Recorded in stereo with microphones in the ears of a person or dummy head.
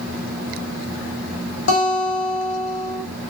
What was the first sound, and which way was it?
A guitar, 75° left (ahead or behind).